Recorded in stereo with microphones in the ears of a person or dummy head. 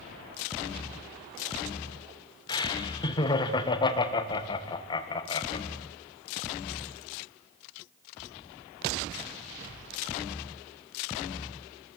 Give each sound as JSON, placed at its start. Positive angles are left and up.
{"t": 2.5, "sound": "laughter", "side_deg": 30, "distance_m": 1.8}